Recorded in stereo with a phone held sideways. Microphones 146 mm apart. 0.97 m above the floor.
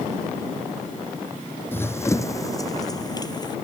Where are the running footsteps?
15° left (ahead or behind); by 3.5 s 30° left (ahead or behind).